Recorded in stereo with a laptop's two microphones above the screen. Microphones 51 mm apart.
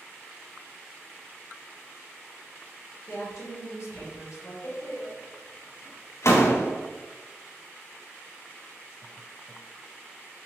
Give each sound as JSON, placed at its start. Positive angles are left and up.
{"t": 3.1, "sound": "a woman speaking", "side_deg": 75, "distance_m": 1.3}
{"t": 4.6, "sound": "a door slam", "side_deg": 65, "distance_m": 0.6}